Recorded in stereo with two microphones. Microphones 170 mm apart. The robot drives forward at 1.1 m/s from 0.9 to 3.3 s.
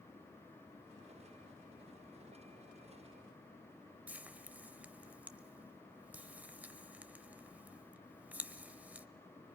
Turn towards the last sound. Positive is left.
turn(degrees=-10)  # may be behind; listen again after turning